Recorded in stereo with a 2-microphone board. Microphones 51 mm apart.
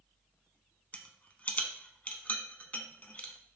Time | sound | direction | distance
0.9 | a rattle | 30° left (ahead or behind) | 0.5 m